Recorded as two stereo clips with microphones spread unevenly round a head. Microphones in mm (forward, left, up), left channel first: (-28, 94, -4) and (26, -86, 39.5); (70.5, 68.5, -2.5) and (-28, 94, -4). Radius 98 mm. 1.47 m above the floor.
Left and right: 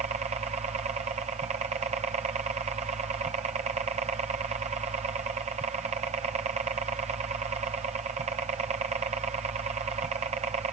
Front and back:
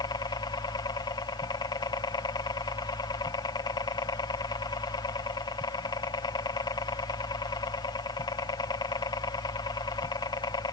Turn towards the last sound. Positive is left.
turn(degrees=-15)